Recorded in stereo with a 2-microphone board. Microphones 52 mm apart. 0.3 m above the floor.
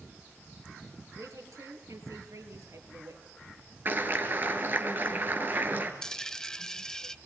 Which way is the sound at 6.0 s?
10° left (ahead or behind).